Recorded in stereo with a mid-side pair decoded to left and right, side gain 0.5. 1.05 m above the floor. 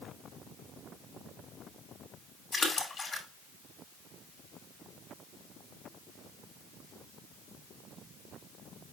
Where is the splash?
25° left, 2.5 m.